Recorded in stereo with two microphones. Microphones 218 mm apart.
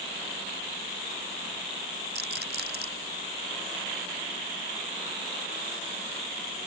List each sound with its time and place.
2.1 s a rattle: 55° right (ahead or behind)